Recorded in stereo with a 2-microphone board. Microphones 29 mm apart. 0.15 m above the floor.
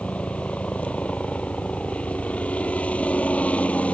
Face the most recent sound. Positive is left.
turn(degrees=60)  # may be behind; listen again after turning